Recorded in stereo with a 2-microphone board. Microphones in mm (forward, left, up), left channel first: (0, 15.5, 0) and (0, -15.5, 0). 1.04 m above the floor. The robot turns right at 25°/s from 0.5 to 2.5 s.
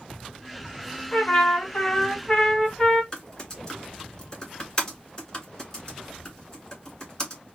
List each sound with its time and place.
1.1 s a trumpet: 115° left, 2 m; by 3.0 s 150° left, 2 m
3.1 s typing on a keyboard: 25° left (ahead or behind), 2.0 m